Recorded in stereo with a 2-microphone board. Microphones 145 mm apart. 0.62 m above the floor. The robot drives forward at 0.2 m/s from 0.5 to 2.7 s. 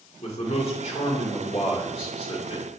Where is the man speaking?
45° left (ahead or behind), 2 m; by 2.6 s 40° left (ahead or behind), 2 m.